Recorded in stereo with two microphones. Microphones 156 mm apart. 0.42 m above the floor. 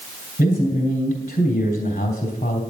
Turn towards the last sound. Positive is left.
turn(degrees=50)  # may be behind; listen again after turning